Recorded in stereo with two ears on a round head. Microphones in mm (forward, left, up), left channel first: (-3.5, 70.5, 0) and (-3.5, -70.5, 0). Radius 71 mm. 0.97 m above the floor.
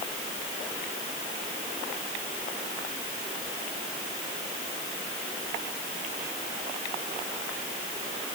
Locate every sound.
Only background noise.